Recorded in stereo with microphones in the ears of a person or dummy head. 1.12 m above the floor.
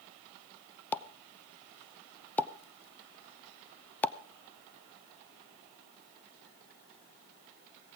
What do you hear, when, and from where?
0.9 s a pop: 10° left (ahead or behind), 0.6 m